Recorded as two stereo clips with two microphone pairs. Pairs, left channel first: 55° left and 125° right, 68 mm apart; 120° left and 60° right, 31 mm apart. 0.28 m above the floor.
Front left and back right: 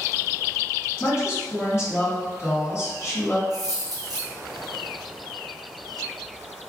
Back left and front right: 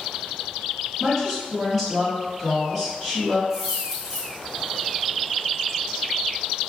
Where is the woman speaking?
35° left, 1.5 m.